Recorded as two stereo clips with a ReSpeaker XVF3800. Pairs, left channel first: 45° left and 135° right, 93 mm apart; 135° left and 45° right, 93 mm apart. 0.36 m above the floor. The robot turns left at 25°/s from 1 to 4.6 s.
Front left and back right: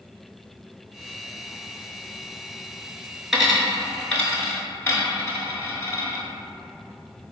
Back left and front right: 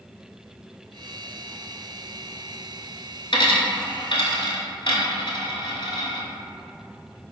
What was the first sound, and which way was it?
A dropped coin, 145° left.